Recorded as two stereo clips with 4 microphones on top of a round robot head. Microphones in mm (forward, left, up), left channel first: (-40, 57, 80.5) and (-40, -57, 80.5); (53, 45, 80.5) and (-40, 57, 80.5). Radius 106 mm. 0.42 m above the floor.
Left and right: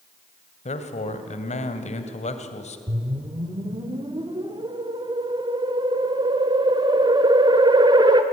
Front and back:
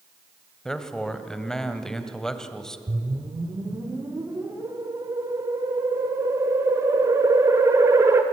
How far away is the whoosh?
About 2 m.